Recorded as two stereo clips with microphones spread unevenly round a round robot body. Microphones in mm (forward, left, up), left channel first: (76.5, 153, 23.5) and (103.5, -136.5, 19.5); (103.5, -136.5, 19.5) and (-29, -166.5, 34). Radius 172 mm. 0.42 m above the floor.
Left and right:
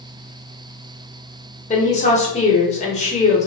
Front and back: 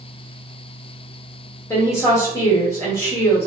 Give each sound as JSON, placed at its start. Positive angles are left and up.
{"t": 1.7, "sound": "a woman speaking", "azimuth_deg": 50, "distance_m": 1.1}